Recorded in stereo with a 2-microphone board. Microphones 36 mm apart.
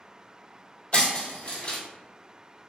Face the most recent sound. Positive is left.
turn(degrees=35)  # may be behind; listen again after turning